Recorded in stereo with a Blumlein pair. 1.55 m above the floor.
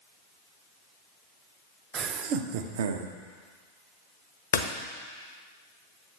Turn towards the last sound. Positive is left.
turn(degrees=65)